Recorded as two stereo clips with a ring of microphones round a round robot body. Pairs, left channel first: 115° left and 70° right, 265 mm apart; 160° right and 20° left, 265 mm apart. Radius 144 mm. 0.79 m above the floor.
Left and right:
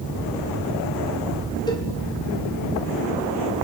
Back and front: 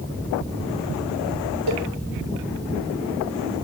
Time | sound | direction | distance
1.7 | a cowbell | 35° left | 1.8 m